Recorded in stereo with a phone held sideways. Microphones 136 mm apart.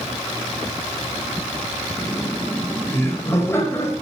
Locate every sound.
2.0 s laughter: 15° left (ahead or behind), 4.5 m; by 3.9 s 20° left (ahead or behind), 6 m